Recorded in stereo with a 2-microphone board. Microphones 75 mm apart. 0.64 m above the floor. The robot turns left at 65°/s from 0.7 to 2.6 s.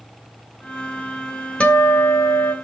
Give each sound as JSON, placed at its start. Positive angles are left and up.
{"t": 1.6, "sound": "a guitar", "azimuth_deg": 165, "distance_m": 1.2}